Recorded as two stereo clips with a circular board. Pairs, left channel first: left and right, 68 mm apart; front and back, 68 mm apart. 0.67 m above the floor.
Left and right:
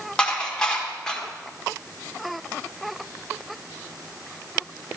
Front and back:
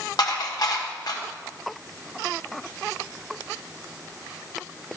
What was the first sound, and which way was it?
Dishes clattering, 10° left.